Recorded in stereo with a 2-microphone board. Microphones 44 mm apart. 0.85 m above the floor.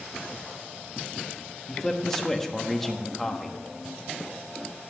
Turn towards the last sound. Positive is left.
turn(degrees=10)  # may be behind; listen again after turning